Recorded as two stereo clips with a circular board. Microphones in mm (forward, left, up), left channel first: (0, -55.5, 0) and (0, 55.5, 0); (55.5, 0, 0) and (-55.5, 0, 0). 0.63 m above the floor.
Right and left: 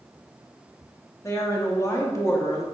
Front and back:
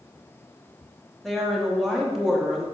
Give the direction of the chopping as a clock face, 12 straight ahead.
No chopping in this recording.